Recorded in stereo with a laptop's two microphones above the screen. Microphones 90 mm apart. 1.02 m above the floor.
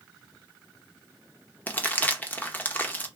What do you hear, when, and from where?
1.7 s crumpling: 20° left (ahead or behind), 0.6 m